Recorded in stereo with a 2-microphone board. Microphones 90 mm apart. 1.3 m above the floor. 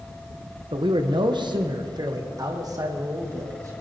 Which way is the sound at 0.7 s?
60° right (ahead or behind).